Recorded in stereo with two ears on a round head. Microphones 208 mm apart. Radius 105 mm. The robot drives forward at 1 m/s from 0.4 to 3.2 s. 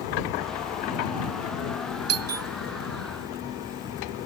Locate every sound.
2.1 s a doorbell: 65° right (ahead or behind); by 2.5 s 70° right (ahead or behind)